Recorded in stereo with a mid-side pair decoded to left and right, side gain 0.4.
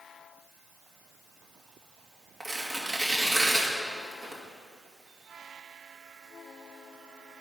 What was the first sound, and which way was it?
Tearing paper, 35° right.